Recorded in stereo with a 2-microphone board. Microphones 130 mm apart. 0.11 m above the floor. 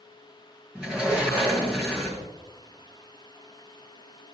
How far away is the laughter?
No laughter in this recording.